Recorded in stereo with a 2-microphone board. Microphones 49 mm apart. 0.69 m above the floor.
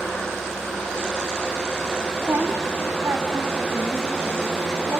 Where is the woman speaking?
55° right (ahead or behind), 1.8 m; by 5.0 s 50° right (ahead or behind), 4 m.